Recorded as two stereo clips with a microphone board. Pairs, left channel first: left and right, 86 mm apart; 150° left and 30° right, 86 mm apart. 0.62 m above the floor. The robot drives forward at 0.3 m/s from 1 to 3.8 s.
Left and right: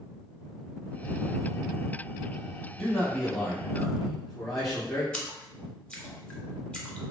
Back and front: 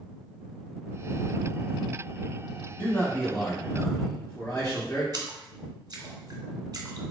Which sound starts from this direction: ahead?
A splash, at 5.1 s.